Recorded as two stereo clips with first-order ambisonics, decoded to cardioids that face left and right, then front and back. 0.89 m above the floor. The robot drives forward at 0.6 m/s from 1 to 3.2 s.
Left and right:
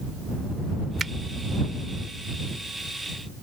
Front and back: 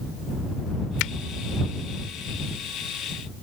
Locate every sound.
1.0 s a finger snap: 15° right